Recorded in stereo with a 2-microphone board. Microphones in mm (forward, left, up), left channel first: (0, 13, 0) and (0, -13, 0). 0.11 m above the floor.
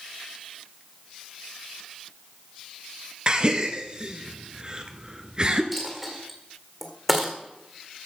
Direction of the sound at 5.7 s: Centre (ahead or behind).